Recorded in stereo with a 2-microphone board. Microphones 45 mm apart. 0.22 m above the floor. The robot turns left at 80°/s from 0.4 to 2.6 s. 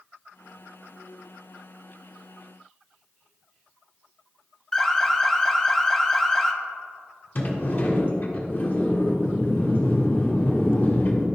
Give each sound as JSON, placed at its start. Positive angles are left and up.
{"t": 4.7, "sound": "an alarm", "side_deg": 15, "distance_m": 0.8}
{"t": 7.3, "sound": "a sliding door", "side_deg": 50, "distance_m": 1.6}